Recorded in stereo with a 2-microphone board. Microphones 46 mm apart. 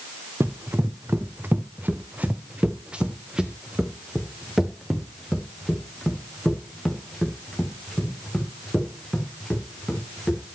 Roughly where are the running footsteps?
Right.